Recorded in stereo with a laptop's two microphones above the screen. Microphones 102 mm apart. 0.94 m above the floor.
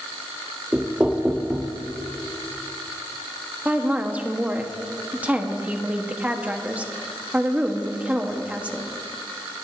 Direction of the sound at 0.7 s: 10° right (ahead or behind).